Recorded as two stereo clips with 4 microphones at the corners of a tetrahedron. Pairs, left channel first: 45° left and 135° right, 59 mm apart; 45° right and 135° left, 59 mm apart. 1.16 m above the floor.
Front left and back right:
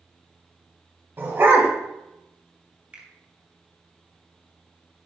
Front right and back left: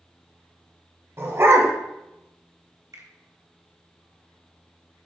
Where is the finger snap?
155° left, 2 m.